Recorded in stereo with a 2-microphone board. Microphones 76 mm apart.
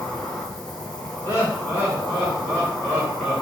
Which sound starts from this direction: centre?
An insect, at 0.0 s.